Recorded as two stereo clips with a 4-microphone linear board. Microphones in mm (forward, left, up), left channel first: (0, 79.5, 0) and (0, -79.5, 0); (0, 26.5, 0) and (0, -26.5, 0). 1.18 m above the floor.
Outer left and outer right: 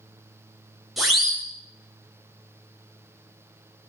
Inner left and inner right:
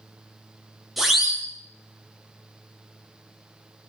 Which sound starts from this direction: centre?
A siren, at 1.0 s.